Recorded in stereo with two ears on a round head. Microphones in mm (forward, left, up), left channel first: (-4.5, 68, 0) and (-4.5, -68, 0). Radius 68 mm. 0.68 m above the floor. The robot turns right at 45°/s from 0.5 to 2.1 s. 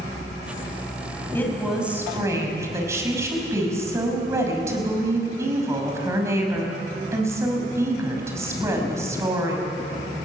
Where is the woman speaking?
165° left, 5.5 m; by 9.7 s 160° right, 5.5 m.